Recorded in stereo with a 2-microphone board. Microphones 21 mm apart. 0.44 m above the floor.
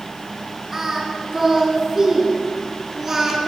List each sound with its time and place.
0.7 s singing: 15° right (ahead or behind), 5.5 m